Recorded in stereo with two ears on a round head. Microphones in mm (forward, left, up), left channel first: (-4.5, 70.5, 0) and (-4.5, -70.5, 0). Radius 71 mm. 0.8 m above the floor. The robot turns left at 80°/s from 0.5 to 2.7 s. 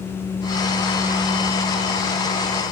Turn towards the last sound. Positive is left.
No sound to turn to.